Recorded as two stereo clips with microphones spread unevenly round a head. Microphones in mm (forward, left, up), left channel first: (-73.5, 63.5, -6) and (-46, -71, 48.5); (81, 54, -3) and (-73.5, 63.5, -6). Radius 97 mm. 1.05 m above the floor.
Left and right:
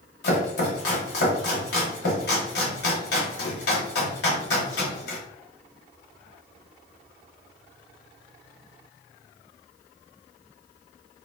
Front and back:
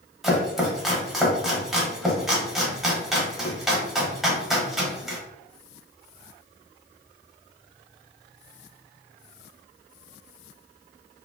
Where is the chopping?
90° left, 1.0 m.